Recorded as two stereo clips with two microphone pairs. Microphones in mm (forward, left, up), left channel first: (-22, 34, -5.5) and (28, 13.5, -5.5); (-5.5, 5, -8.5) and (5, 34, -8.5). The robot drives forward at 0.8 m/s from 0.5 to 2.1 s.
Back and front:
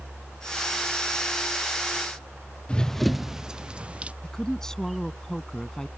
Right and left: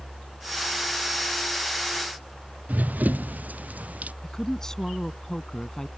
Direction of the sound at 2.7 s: 90° left.